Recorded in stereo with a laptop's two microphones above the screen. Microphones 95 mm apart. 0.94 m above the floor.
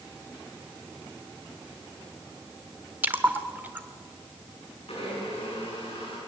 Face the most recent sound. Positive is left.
turn(degrees=90)